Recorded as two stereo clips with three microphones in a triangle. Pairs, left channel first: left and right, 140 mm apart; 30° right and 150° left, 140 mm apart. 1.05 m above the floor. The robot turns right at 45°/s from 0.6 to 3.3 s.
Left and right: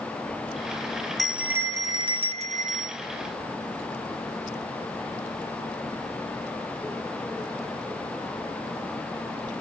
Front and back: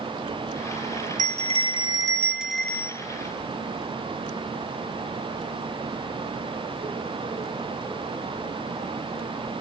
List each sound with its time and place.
1.2 s a bell: straight behind, 0.5 m; by 3.0 s 100° right, 0.5 m